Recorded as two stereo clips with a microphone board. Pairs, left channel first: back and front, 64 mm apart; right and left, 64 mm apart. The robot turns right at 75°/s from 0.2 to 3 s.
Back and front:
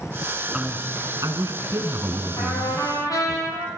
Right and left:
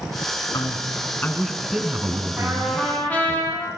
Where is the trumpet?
155° left, 10 m; by 3.7 s 160° right, 10 m.